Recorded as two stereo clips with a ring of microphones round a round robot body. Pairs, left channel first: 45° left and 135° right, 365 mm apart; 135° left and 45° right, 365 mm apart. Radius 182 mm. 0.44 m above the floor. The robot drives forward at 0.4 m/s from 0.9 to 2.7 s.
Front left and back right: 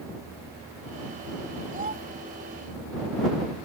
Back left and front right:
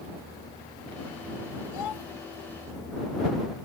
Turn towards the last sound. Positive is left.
turn(degrees=160)